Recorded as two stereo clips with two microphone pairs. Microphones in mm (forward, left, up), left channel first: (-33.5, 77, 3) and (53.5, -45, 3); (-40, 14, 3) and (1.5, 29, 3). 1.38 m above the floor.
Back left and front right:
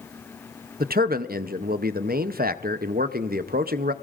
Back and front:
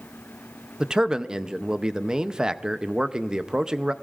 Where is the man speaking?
55° right, 0.6 m.